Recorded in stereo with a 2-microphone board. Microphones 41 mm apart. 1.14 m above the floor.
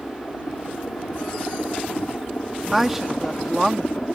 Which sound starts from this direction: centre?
A woman speaking, at 2.7 s.